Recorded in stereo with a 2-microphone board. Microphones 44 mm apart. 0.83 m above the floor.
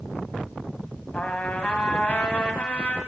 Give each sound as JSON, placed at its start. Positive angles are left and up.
{"t": 1.1, "sound": "a trumpet", "side_deg": 35, "distance_m": 1.0}